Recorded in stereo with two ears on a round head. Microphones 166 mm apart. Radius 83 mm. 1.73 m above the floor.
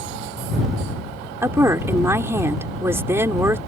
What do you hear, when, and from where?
1.4 s a woman speaking: 15° right (ahead or behind)